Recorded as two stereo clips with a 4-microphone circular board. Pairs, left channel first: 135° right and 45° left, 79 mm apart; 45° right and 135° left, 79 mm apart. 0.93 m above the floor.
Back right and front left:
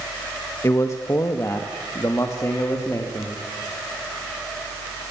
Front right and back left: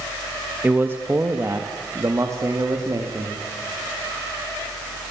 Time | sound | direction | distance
0.6 | a man speaking | 165° right | 1.3 m